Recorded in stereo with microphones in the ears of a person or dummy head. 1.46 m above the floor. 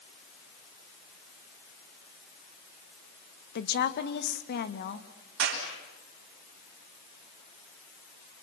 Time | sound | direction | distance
3.5 | a woman speaking | 55° left (ahead or behind) | 1.6 m
5.4 | a clap | 65° right (ahead or behind) | 7 m